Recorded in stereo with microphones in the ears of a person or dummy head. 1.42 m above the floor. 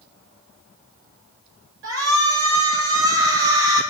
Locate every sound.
1.8 s a shout: 85° right, 7.5 m